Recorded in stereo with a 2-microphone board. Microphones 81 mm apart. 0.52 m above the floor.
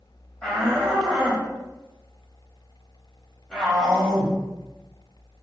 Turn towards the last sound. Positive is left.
turn(degrees=10)  # may be behind; listen again after turning